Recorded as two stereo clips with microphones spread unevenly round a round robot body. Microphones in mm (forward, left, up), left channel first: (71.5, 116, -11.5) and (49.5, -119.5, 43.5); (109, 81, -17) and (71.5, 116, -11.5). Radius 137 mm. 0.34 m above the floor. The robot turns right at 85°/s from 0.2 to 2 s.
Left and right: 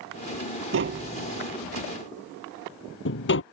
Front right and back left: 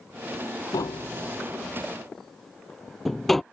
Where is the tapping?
65° right; by 3.4 s 45° left.